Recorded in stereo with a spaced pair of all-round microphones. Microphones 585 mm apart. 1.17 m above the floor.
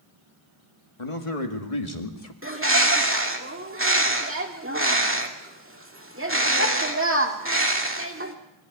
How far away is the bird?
About 2 m.